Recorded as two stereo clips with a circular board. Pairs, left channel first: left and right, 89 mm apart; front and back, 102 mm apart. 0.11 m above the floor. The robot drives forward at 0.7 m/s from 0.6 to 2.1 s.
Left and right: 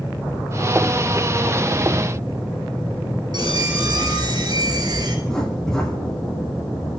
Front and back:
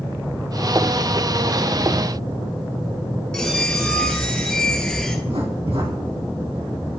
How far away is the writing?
About 5 m.